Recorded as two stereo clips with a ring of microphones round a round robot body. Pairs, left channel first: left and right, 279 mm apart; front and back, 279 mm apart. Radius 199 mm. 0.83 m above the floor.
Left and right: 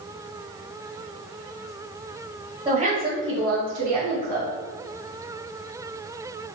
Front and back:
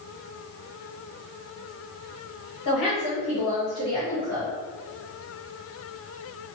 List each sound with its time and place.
2.6 s a woman speaking: 20° right, 1.7 m; by 4.5 s 100° right, 1.5 m